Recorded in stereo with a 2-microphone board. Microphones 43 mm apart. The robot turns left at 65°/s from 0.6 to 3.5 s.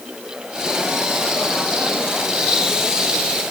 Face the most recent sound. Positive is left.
No sound to turn to.